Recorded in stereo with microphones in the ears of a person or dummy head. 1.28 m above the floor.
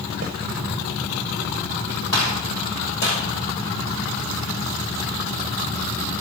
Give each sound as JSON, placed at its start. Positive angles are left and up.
{"t": 0.2, "sound": "a snare drum", "side_deg": -50, "distance_m": 0.9}
{"t": 2.1, "sound": "a gunshot", "side_deg": 70, "distance_m": 6.0}